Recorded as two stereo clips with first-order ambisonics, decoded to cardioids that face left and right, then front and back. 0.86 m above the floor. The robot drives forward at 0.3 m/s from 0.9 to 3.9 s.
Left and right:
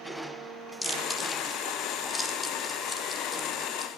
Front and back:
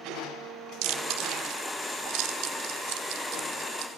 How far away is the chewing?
About 1.5 m.